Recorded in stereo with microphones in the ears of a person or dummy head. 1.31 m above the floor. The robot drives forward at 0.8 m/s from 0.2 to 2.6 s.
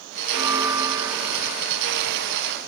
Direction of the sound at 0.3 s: 15° right (ahead or behind).